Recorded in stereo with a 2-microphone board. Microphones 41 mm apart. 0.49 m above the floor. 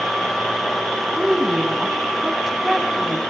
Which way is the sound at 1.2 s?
10° right (ahead or behind).